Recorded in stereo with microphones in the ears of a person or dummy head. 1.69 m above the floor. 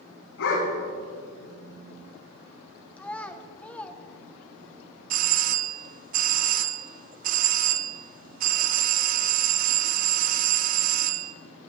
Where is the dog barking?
75° left (ahead or behind), 5 m.